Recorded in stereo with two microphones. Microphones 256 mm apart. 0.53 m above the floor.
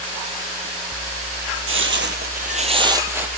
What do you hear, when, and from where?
1.7 s footsteps: 55° right (ahead or behind), 0.8 m; by 3.4 s 5° right (ahead or behind), 0.9 m